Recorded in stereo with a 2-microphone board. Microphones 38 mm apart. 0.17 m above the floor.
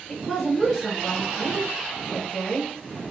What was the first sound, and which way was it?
A woman speaking, centre (ahead or behind).